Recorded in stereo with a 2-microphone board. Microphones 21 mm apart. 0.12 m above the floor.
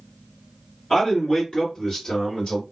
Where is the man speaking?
25° left (ahead or behind), 1.9 m; by 2.6 s 40° left (ahead or behind), 2 m.